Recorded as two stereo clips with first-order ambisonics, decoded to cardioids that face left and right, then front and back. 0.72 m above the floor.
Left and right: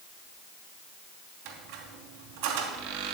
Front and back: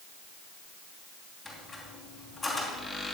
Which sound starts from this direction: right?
A squeak, at 1.4 s.